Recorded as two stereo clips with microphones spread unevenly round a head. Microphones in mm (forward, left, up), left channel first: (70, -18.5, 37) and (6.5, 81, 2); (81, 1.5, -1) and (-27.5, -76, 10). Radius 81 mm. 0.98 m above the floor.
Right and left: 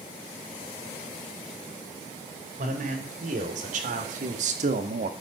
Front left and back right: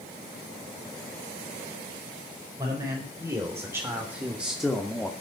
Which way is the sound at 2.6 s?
145° left.